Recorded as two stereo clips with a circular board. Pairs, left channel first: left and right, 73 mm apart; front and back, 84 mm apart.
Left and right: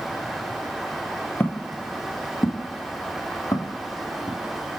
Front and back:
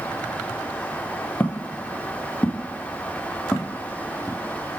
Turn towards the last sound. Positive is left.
turn(degrees=80)